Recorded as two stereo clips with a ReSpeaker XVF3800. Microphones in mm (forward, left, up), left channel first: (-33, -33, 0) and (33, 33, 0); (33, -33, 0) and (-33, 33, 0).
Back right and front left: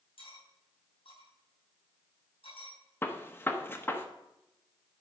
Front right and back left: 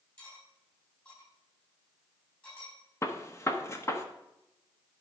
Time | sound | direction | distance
0.2 | cutlery clinking | 115° right | 5.5 m
3.0 | a gunshot | 80° right | 1.0 m